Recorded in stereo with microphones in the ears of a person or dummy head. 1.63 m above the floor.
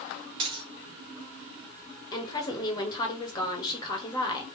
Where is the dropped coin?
35° right (ahead or behind), 1.4 m.